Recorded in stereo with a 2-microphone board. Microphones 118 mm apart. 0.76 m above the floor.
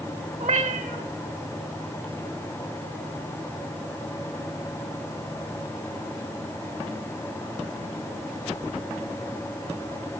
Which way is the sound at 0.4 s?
80° right.